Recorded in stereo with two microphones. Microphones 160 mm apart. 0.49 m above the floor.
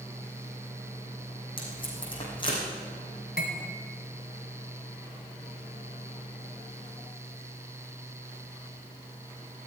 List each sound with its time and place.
1.6 s tape being pulled: 30° left (ahead or behind), 4 m
3.4 s cutlery clinking: 80° left, 1.9 m